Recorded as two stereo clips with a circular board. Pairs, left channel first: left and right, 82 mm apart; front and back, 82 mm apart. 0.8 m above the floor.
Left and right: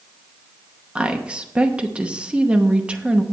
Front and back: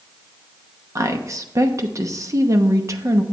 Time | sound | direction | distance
0.9 | a woman speaking | 160° right | 0.9 m